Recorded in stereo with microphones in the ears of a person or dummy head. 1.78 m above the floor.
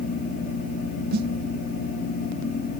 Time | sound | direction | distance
1.1 | a snare drum | 50° right (ahead or behind) | ?